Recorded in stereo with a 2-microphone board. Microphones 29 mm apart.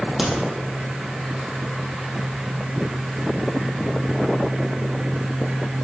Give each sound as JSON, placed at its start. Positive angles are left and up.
{"t": 0.2, "sound": "a crack", "side_deg": -5, "distance_m": 2.0}